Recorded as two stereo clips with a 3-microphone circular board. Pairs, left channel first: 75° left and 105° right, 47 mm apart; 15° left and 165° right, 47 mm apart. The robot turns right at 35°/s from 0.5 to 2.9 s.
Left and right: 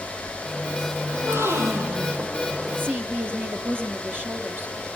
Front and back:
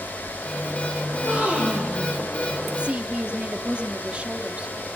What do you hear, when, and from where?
1.1 s a gasp: 110° right, 6.5 m; by 2.2 s 75° right, 6.5 m
2.8 s a woman speaking: 110° right, 2 m; by 4.8 s 105° right, 2 m